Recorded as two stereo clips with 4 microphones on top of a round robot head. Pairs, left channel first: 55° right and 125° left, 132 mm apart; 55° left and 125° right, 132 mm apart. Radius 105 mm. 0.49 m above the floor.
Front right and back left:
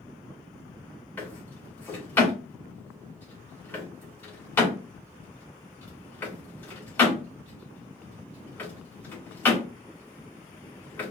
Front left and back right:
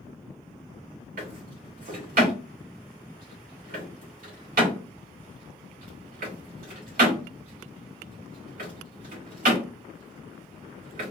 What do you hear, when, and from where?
1.2 s a drawer: 130° right, 3 m